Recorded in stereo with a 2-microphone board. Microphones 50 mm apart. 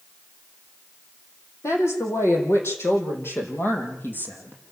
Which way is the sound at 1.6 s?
65° left (ahead or behind).